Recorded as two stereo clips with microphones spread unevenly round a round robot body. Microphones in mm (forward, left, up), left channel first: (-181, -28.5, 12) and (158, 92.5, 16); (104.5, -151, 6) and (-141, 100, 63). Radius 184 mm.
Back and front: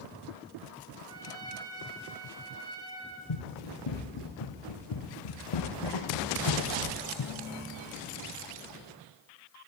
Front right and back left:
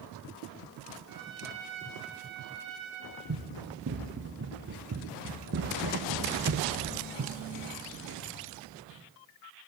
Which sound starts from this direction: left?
A trumpet, at 1.1 s.